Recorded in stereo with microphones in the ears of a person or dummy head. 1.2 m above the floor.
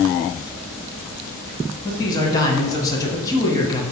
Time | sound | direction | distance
1.9 | a man speaking | 20° left (ahead or behind) | 0.7 m